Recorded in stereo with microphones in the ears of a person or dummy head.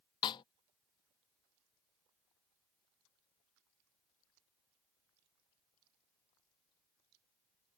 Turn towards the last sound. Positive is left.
turn(degrees=25)  # may be behind; listen again after turning